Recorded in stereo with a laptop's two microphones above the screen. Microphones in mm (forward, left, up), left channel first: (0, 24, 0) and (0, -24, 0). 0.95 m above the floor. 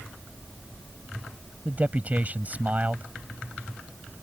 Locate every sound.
1.6 s a man speaking: 30° right (ahead or behind)